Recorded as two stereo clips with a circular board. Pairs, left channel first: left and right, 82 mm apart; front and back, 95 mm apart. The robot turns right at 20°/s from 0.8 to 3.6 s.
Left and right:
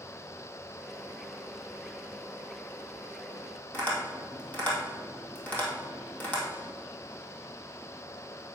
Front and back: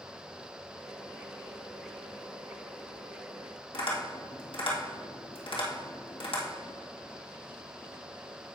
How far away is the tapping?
About 2.5 m.